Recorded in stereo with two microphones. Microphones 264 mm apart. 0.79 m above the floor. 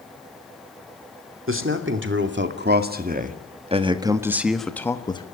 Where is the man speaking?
50° right (ahead or behind), 2.5 m; by 5.2 s 20° left (ahead or behind), 1.3 m.